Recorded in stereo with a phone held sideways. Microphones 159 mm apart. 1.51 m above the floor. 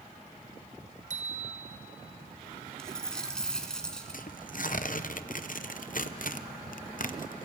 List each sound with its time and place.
1.1 s a bicycle bell: 55° right (ahead or behind), 4 m
2.8 s a dropped coin: 5° left (ahead or behind), 2 m
4.1 s tearing paper: 60° left (ahead or behind), 0.7 m